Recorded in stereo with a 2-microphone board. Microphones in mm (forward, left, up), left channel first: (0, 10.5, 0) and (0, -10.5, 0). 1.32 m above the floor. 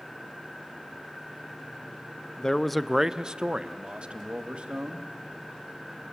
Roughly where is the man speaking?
Left.